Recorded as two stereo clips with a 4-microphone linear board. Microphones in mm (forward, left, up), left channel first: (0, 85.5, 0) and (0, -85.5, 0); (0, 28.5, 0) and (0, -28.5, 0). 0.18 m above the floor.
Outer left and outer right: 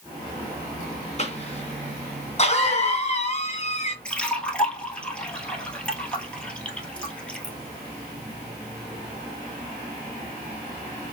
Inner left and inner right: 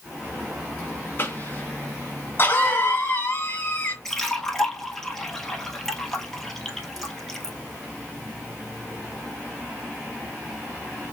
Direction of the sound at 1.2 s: 40° left (ahead or behind).